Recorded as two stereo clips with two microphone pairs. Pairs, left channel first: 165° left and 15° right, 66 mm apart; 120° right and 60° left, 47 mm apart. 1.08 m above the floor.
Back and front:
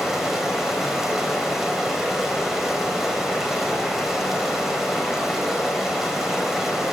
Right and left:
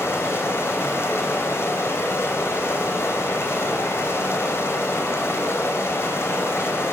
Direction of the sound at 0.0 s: 100° right.